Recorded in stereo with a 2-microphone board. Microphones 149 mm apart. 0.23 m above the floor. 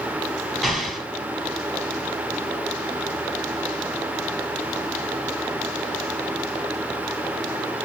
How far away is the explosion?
About 1.4 m.